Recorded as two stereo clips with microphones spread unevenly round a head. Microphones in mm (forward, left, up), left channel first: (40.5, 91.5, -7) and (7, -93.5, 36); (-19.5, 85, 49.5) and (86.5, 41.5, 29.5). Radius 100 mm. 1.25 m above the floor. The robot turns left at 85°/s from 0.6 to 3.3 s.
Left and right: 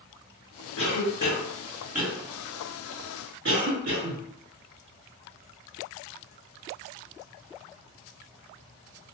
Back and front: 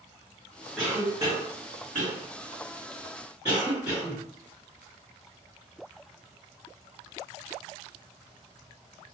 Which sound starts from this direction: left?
A cough, at 0.8 s.